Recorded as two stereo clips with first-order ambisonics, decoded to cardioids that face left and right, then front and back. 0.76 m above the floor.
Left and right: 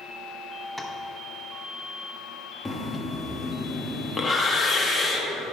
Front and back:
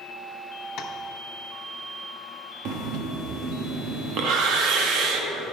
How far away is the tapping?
About 0.9 m.